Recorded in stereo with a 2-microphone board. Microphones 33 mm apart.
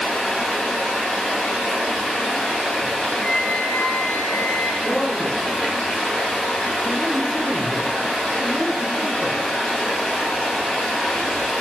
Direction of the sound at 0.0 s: 5° right (ahead or behind).